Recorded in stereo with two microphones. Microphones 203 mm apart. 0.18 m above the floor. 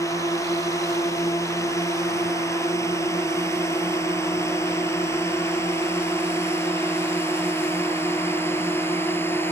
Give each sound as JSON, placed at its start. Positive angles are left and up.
{"t": 0.0, "sound": "a drone", "side_deg": 15}